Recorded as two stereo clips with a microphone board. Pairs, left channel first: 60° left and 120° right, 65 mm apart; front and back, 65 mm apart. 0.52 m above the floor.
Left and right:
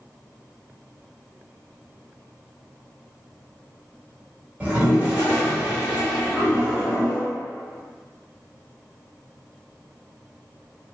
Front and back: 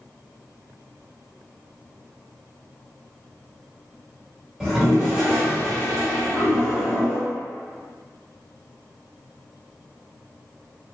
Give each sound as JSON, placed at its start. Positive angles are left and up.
{"t": 4.6, "sound": "a toilet flushing", "azimuth_deg": -110, "distance_m": 1.1}